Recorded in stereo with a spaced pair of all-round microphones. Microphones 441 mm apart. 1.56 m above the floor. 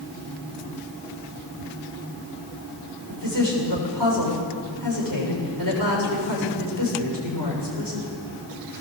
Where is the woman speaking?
50° right (ahead or behind), 7 m.